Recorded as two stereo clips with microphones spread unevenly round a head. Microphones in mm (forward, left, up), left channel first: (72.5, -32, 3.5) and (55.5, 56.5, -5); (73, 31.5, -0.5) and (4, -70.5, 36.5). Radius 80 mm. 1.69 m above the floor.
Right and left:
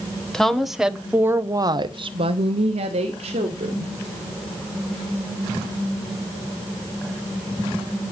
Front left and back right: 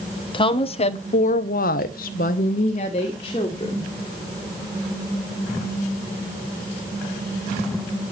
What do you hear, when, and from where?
0.3 s a woman speaking: 5° left, 1.6 m; by 3.9 s 125° left, 2 m